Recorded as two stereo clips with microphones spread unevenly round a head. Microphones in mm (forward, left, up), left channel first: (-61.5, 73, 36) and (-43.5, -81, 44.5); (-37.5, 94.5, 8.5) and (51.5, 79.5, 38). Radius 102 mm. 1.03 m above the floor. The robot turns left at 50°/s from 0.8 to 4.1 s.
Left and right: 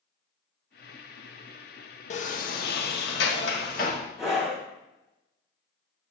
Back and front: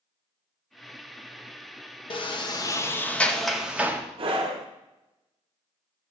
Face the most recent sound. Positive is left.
turn(degrees=5)